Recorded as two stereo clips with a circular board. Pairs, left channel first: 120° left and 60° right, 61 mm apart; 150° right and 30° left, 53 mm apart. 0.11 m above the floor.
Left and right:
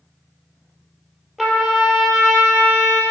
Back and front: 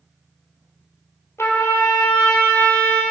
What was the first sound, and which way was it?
A trumpet, 155° right.